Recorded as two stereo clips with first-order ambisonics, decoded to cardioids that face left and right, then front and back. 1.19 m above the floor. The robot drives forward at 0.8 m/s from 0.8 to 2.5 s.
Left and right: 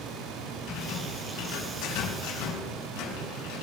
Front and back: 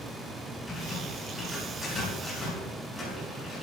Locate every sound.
0.7 s a rattle: 75° left, 7 m; by 3.6 s 85° left, 7 m